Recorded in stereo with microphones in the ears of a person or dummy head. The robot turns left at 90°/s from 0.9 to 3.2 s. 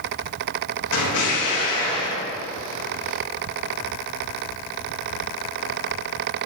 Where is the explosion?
95° left, 1.5 m; by 2.2 s 25° right, 1.5 m.